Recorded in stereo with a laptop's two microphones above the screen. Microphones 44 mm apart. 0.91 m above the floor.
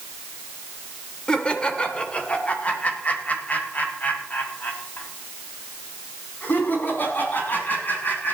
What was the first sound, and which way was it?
Laughter, 20° left (ahead or behind).